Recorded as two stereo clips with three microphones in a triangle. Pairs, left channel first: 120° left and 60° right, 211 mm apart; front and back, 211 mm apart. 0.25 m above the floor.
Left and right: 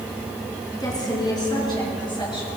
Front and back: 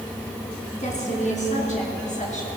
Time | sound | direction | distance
0.8 | a woman speaking | 50° left | 2 m